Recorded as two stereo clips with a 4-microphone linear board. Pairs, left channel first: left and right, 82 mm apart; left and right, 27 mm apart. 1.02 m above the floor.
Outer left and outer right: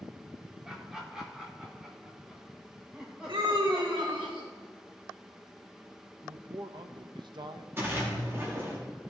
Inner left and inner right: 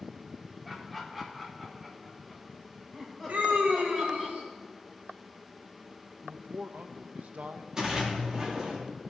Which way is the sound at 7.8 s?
30° right (ahead or behind).